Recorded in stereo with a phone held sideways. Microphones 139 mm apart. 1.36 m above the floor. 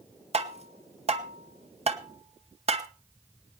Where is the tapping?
45° right (ahead or behind), 1.1 m.